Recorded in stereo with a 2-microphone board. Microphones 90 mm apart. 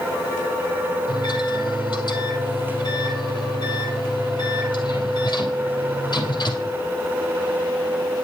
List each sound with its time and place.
1.1 s a microwave: 50° left (ahead or behind), 2.5 m